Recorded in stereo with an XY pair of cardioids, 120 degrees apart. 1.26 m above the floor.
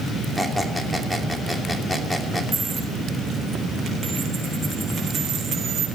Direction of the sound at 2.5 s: 40° right.